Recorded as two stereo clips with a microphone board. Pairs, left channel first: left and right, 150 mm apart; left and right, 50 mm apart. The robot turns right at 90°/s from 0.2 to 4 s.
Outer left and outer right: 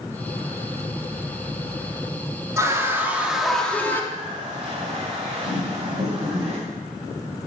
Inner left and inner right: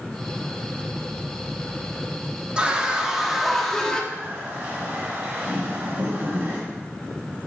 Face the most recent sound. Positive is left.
turn(degrees=-45)  # may be behind; listen again after turning